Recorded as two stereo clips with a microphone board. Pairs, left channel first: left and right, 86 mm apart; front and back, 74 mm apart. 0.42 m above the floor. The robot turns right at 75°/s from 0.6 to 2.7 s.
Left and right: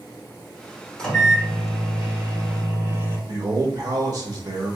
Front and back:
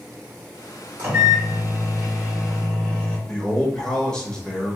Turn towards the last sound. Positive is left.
turn(degrees=-75)